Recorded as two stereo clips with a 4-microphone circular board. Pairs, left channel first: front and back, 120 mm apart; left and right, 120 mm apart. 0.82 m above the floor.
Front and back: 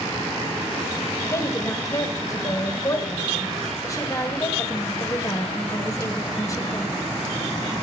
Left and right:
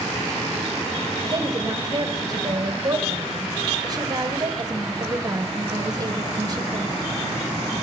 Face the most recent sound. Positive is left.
turn(degrees=-50)